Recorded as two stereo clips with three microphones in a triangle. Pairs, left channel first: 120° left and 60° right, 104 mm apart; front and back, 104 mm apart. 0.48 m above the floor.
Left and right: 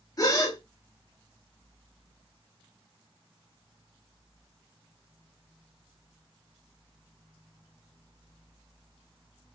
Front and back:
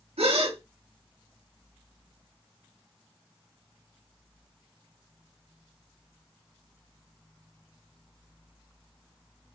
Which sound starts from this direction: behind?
A gasp, at 0.2 s.